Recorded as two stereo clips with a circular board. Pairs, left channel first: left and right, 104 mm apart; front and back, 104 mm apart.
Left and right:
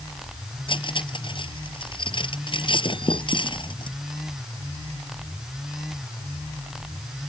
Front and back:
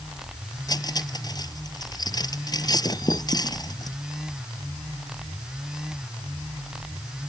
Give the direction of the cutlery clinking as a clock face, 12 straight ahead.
10 o'clock.